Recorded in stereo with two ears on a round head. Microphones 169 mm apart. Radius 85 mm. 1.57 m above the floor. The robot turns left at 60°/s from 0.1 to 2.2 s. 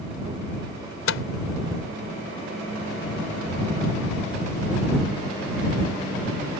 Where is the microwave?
80° left; by 1.2 s 70° left (ahead or behind).